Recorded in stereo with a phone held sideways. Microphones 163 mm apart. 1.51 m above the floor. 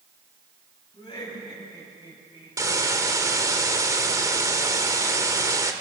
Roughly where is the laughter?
Left.